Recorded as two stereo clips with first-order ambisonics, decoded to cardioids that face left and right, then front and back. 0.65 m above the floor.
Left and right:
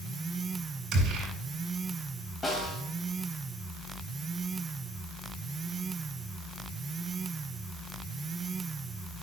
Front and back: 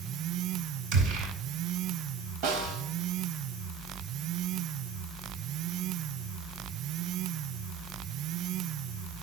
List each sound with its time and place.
0.9 s a gunshot: 145° right, 6.5 m
2.4 s a snare drum: 165° left, 2.5 m